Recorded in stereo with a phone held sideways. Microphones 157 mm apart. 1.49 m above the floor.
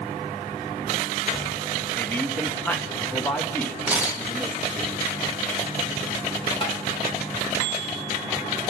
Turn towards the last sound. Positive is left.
turn(degrees=35)  # may be behind; listen again after turning